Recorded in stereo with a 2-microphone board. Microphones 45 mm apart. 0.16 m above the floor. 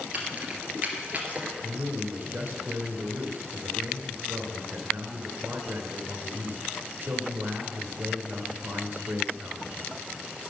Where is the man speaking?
50° right (ahead or behind), 2.5 m.